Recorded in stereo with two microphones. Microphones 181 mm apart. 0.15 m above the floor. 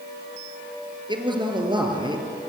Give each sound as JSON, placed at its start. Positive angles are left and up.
{"t": 1.1, "sound": "a man speaking", "side_deg": -25, "distance_m": 3.5}